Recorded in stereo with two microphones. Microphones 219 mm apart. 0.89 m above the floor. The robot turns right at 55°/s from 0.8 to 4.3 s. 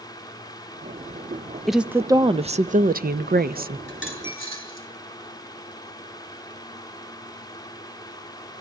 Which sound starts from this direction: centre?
A dropped coin, at 3.9 s.